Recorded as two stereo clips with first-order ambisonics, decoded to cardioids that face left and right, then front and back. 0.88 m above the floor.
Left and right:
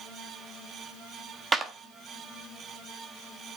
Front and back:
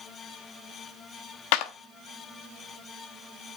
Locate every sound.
1.5 s a clap: 15° right, 0.8 m